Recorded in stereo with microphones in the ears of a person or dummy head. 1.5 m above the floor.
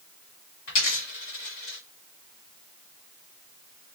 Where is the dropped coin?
45° left (ahead or behind), 1.8 m.